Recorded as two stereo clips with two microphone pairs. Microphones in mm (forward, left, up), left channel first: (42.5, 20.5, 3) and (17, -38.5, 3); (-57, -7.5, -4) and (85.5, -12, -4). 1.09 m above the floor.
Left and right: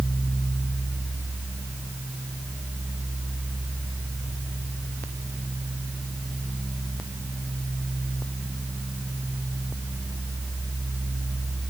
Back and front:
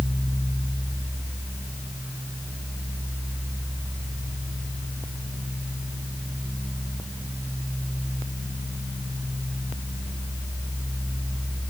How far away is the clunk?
I don't hear a clunk.